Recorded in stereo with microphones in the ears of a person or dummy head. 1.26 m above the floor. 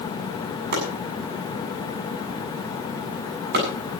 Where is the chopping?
50° right (ahead or behind), 8 m.